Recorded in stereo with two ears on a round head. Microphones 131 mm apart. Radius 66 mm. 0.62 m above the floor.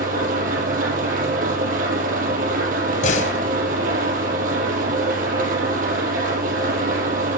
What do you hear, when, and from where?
0.0 s an engine running: 60° right (ahead or behind), 4.5 m
3.0 s a door slam: 55° left (ahead or behind), 2 m